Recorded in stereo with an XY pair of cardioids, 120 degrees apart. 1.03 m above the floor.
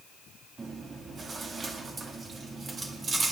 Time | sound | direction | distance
0.6 | chewing | 40° right | 2.0 m